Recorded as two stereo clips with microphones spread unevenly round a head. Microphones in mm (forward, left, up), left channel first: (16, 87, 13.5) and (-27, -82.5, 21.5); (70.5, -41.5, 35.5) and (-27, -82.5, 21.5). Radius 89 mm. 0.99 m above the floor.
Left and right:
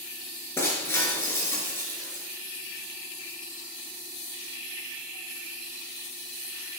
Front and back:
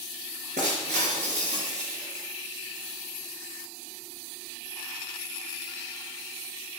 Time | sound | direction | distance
0.6 | breaking glass | 155° left | 4 m